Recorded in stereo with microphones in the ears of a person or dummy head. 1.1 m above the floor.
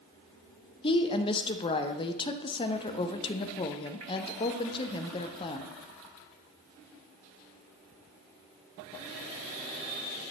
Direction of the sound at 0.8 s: 30° left (ahead or behind).